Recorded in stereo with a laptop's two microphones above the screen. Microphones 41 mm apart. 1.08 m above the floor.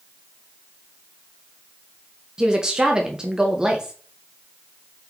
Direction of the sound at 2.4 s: 20° right (ahead or behind).